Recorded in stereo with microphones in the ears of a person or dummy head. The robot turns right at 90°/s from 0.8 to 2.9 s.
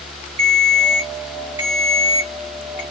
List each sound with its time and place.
0.4 s a ringtone: 25° right (ahead or behind), 1.0 m; by 2.8 s 25° left (ahead or behind), 1.0 m